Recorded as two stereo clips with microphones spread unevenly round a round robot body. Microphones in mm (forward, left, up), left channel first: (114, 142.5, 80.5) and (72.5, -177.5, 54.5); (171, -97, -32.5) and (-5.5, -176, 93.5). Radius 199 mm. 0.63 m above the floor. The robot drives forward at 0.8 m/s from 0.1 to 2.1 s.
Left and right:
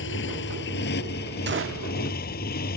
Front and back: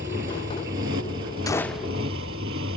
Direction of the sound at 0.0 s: 145° left.